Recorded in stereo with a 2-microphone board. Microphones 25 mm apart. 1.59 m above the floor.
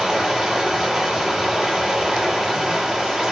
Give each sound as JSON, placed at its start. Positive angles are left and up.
{"t": 0.0, "sound": "running water", "side_deg": -15, "distance_m": 1.1}